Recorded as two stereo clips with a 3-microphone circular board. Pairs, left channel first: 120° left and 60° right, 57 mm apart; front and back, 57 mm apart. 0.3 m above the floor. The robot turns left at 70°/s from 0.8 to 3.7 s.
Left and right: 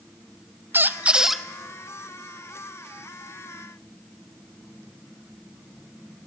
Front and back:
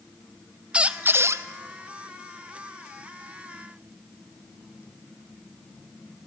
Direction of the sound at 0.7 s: 110° right.